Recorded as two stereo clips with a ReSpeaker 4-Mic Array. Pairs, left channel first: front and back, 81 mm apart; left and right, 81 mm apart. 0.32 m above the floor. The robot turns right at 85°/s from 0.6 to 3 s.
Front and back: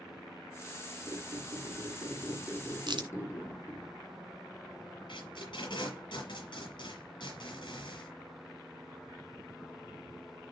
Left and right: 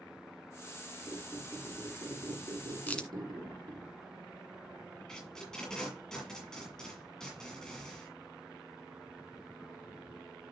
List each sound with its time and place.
1.1 s a squeak: 140° left, 4.5 m; by 3.9 s 55° right, 4.5 m
2.9 s a crack: 160° left, 1.8 m; by 3.1 s 170° left, 1.8 m
5.1 s tape being pulled: 5° left, 6 m